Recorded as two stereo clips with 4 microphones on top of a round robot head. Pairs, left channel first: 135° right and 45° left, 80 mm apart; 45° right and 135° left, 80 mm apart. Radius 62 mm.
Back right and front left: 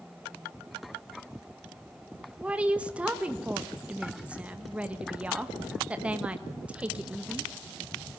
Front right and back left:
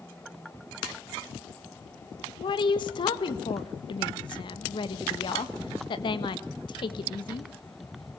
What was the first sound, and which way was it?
A woman speaking, 30° right.